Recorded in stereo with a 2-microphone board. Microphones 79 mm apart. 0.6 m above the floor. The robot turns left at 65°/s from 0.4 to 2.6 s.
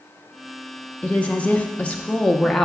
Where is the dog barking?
I don't hear a dog barking.